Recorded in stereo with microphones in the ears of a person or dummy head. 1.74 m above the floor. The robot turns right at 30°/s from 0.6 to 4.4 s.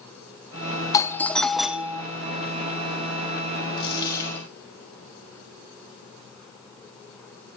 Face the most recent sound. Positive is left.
turn(degrees=15)  # may be behind; listen again after turning